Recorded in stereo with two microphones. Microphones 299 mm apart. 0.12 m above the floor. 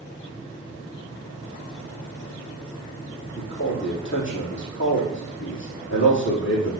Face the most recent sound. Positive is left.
turn(degrees=40)  # may be behind; listen again after turning